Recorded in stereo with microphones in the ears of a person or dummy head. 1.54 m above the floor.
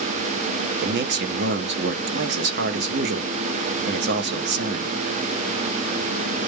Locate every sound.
0.8 s a man speaking: 55° right (ahead or behind), 0.6 m